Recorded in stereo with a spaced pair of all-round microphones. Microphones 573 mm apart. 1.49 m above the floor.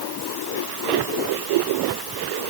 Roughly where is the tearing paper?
No tearing paper in this recording.